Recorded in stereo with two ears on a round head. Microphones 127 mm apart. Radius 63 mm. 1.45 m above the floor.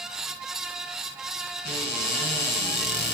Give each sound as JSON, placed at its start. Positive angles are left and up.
{"t": 1.6, "sound": "a cupboard door", "side_deg": 80, "distance_m": 6.0}